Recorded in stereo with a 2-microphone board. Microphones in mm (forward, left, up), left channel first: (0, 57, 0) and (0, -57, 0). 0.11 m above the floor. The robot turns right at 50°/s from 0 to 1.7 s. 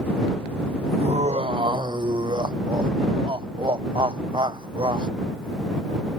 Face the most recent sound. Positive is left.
turn(degrees=-50)